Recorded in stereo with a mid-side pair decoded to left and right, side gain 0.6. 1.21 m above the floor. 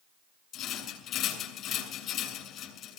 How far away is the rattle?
About 7 m.